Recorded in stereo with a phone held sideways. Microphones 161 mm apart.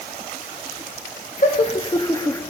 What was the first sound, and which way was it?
Laughter, 50° left (ahead or behind).